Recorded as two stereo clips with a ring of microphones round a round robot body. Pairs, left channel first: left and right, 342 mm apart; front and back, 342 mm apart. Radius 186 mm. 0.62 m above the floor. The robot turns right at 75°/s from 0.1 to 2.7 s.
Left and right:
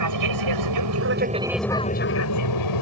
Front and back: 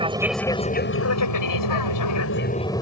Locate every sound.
0.0 s an aircraft: 105° right; by 2.8 s 80° left